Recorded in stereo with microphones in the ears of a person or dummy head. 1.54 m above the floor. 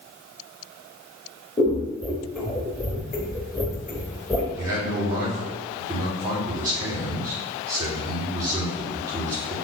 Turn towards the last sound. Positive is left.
turn(degrees=-20)  # may be behind; listen again after turning